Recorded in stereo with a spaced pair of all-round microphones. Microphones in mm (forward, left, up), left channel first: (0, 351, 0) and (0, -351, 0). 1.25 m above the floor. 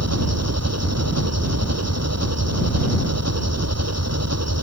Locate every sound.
0.0 s an engine running: 20° right (ahead or behind)